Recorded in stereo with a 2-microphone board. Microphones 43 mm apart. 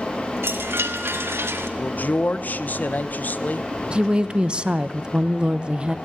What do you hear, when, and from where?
0.4 s a chime: 90° right, 1.7 m
1.8 s a man speaking: 45° left (ahead or behind), 0.9 m
3.9 s a woman speaking: 25° right (ahead or behind), 0.7 m